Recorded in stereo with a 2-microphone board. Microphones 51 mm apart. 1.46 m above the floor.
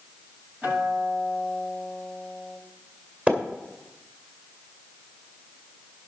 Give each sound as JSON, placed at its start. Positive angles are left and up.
{"t": 0.6, "sound": "a guitar", "side_deg": -25, "distance_m": 6.0}
{"t": 3.3, "sound": "a splash", "side_deg": -30, "distance_m": 2.0}